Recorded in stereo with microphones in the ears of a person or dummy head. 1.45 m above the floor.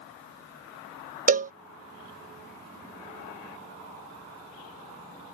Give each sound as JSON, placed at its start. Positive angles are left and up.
{"t": 1.3, "sound": "a cowbell", "side_deg": -40}